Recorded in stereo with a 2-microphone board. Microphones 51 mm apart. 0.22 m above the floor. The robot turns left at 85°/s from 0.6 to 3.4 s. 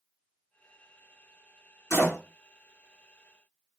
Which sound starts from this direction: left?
A door slam, at 1.9 s.